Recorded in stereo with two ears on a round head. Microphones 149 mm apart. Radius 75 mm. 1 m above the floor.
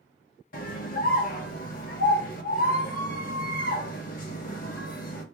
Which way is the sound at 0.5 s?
50° left (ahead or behind).